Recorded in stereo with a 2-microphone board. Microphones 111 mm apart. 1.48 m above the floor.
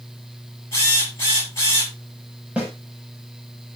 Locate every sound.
0.7 s a drill: 25° left (ahead or behind), 9 m
2.6 s a snare drum: 10° right (ahead or behind), 7 m